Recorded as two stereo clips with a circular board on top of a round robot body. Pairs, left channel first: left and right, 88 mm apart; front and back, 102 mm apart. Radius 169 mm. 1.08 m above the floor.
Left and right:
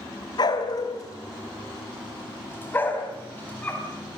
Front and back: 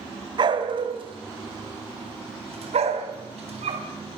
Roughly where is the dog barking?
Behind left.